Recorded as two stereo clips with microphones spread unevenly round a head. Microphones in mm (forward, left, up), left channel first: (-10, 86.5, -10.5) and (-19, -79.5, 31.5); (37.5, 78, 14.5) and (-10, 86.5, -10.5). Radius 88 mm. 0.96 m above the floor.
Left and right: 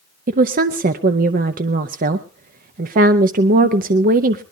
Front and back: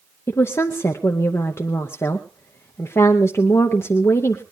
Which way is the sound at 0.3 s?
70° right.